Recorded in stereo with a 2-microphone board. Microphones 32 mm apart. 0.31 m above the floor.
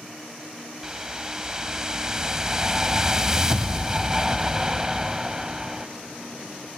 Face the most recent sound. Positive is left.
turn(degrees=-20)  # may be behind; listen again after turning